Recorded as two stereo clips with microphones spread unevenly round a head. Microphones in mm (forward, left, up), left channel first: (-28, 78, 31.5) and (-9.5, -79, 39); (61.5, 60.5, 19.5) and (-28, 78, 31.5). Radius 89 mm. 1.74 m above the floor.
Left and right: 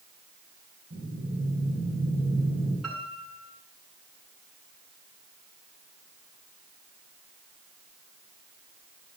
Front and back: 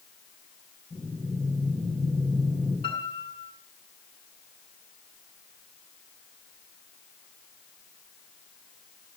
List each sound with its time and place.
0.9 s breathing: 85° right, 6.5 m
2.8 s a piano: 5° left, 5 m